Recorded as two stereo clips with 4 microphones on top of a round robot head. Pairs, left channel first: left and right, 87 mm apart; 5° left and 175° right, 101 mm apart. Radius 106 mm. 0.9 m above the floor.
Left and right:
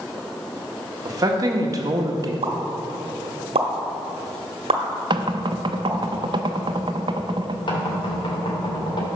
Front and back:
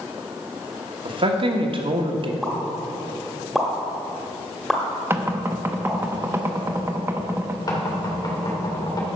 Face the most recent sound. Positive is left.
turn(degrees=60)